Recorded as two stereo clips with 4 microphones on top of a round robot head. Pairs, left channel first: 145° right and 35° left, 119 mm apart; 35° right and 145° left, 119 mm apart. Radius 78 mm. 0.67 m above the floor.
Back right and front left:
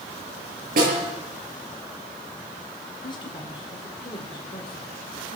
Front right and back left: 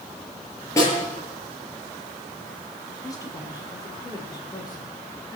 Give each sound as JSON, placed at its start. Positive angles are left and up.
{"t": 0.8, "sound": "a snare drum", "azimuth_deg": 35, "distance_m": 7.0}
{"t": 3.0, "sound": "a woman speaking", "azimuth_deg": -95, "distance_m": 2.5}